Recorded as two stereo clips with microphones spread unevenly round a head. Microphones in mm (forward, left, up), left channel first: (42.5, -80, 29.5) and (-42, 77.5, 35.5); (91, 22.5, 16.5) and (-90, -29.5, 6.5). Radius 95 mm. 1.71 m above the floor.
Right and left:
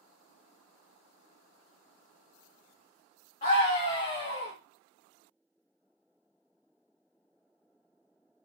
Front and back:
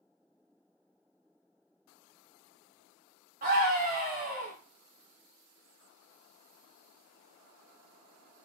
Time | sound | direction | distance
3.4 | a scream | 110° right | 0.7 m